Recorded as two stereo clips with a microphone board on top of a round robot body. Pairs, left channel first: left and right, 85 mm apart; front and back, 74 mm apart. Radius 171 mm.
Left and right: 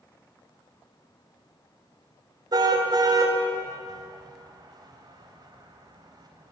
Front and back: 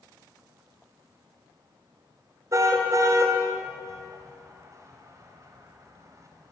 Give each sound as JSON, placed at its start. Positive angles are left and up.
{"t": 2.5, "sound": "a car horn", "azimuth_deg": -130, "distance_m": 2.5}